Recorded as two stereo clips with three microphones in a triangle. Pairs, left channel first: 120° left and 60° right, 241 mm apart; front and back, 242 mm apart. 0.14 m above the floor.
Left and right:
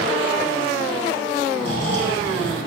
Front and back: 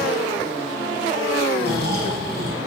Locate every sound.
1.6 s snoring: 130° left, 5 m